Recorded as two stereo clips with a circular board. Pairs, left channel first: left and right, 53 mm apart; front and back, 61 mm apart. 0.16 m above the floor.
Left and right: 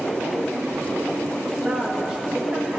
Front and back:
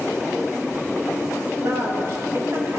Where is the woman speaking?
155° right, 3.5 m.